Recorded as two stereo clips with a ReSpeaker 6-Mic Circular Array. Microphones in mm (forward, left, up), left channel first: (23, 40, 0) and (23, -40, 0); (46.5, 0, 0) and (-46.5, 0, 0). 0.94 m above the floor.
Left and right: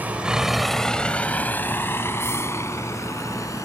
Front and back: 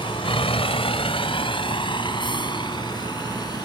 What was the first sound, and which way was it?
A vehicle, 20° right.